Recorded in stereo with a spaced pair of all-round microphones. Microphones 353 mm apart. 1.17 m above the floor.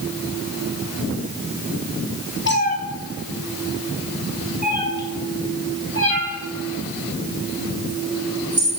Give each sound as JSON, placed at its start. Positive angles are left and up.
{"t": 2.5, "sound": "a cat meowing", "side_deg": 30, "distance_m": 0.9}